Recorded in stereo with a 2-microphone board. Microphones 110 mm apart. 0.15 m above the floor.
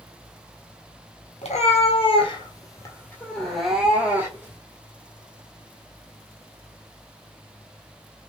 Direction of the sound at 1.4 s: 75° left (ahead or behind).